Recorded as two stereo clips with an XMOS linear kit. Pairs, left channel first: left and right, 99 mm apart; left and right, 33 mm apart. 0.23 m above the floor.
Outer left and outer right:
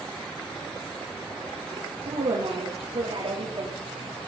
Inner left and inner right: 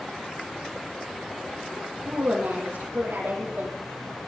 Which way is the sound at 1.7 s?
80° right.